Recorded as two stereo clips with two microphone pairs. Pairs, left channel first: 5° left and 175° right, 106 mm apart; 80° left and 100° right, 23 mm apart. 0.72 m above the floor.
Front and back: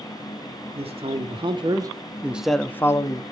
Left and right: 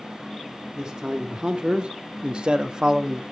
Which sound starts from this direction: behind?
A man speaking, at 0.8 s.